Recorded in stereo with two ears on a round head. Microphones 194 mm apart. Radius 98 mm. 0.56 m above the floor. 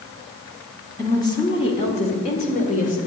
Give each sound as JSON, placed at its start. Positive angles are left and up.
{"t": 1.0, "sound": "a woman speaking", "side_deg": 15, "distance_m": 1.4}